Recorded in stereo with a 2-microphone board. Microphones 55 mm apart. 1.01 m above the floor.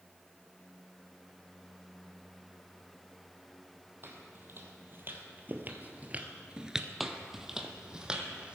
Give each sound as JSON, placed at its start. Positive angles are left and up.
{"t": 4.0, "sound": "footsteps", "side_deg": -45, "distance_m": 2.5}
{"t": 7.0, "sound": "footsteps", "side_deg": -5, "distance_m": 1.2}